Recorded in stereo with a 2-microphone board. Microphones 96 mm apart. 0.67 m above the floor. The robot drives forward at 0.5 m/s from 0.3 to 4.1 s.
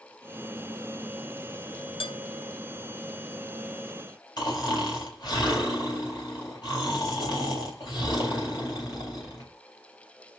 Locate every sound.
2.0 s dishes clattering: 75° left (ahead or behind), 2 m
4.4 s snoring: 50° left (ahead or behind), 3 m